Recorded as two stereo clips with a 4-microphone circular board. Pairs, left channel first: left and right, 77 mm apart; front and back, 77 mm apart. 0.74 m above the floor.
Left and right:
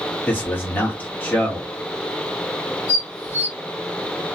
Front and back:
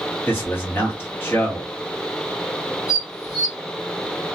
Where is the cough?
I don't hear a cough.